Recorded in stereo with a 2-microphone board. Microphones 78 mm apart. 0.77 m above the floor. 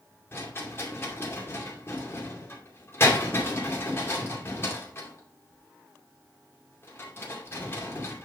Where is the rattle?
35° left (ahead or behind), 2.5 m.